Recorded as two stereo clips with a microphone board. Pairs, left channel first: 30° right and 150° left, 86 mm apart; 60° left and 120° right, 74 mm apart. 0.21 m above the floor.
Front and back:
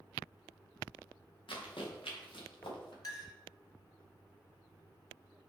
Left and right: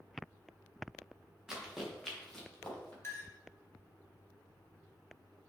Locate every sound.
1.5 s running footsteps: 40° right, 3 m; by 2.9 s 15° right, 4 m
3.0 s a clink: 5° left, 1.9 m